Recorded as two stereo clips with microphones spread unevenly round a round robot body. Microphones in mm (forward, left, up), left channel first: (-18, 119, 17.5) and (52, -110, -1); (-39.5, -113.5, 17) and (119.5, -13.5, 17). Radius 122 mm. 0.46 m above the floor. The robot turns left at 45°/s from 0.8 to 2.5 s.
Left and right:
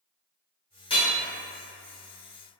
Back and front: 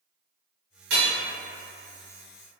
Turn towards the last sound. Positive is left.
turn(degrees=-35)